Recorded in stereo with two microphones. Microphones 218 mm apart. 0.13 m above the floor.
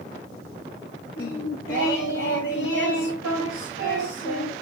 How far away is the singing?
About 4 m.